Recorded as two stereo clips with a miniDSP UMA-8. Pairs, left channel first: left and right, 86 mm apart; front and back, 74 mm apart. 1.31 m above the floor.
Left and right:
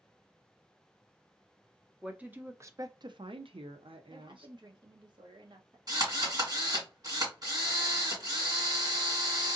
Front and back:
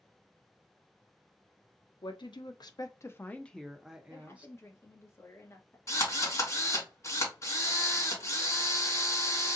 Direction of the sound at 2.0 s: 10° right.